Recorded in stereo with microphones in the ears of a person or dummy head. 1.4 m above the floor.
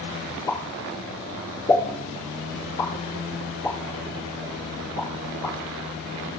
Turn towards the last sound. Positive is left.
turn(degrees=15)  # may be behind; listen again after turning